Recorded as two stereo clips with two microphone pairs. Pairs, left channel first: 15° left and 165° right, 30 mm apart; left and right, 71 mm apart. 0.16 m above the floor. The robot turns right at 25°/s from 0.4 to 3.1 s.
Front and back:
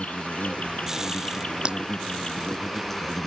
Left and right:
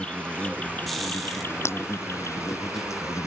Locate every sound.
0.0 s an insect: 20° left; by 3.3 s 90° left
1.6 s breaking glass: 140° left